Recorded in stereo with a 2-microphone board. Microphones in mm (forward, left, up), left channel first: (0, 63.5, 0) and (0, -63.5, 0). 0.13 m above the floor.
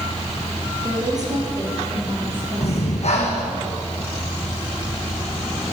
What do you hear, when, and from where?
0.8 s a woman speaking: 30° right (ahead or behind), 3.5 m; by 3.6 s 45° right (ahead or behind), 6 m
2.6 s breathing: 60° left (ahead or behind), 2.5 m